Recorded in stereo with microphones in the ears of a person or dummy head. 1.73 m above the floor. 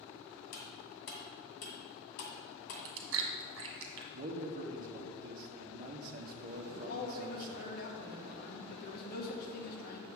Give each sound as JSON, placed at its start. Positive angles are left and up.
{"t": 0.5, "sound": "cutlery clinking", "side_deg": 65, "distance_m": 2.0}
{"t": 2.7, "sound": "chewing", "side_deg": -65, "distance_m": 1.4}
{"t": 4.1, "sound": "a man speaking", "side_deg": -45, "distance_m": 1.1}
{"t": 6.7, "sound": "a man speaking", "side_deg": 60, "distance_m": 1.9}